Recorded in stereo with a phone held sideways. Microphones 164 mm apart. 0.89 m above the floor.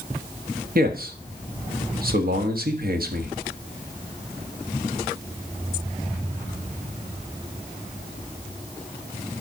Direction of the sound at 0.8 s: 65° right (ahead or behind).